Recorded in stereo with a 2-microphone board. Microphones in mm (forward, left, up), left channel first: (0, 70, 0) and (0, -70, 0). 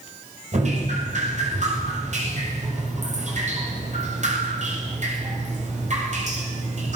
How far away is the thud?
I don't hear a thud.